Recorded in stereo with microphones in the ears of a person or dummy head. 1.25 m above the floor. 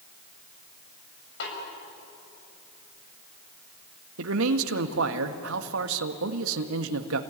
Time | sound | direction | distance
1.4 | a snare drum | 70° left (ahead or behind) | 7 m
4.2 | a man speaking | 75° right (ahead or behind) | 1.5 m